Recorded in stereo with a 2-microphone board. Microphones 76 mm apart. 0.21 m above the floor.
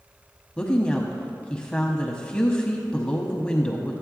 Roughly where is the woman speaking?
Centre.